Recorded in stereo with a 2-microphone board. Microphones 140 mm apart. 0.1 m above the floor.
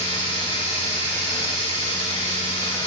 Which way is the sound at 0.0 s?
35° left (ahead or behind).